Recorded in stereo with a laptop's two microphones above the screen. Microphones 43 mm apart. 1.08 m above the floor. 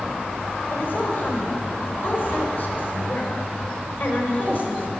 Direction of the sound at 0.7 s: 50° left (ahead or behind).